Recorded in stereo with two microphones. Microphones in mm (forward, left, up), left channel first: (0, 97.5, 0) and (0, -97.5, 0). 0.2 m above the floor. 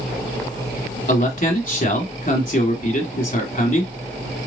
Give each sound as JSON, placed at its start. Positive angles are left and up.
{"t": 1.1, "sound": "a man speaking", "side_deg": 45, "distance_m": 1.6}